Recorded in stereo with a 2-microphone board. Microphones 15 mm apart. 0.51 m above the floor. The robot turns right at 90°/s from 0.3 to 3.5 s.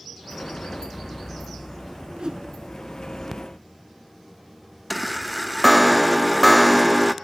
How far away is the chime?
About 0.6 m.